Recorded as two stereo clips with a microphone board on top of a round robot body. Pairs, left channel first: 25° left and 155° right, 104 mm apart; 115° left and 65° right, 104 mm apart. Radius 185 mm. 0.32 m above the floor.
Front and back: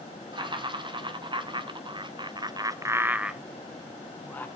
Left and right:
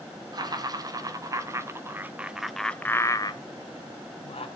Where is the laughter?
115° right, 2.5 m; by 4.5 s 90° left, 1.7 m.